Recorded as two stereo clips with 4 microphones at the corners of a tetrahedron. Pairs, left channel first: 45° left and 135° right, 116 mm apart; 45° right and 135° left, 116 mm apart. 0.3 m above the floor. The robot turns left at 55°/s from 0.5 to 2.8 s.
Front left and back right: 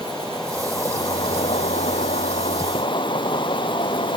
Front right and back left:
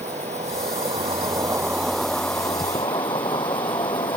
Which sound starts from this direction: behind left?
An insect, at 0.0 s.